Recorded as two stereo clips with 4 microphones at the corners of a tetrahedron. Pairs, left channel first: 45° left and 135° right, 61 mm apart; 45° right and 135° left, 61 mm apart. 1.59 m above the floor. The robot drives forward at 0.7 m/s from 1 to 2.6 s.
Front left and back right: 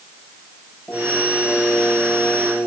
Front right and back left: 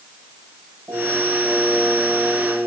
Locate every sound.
0.9 s singing: 100° left, 8 m; by 2.7 s 105° left, 8 m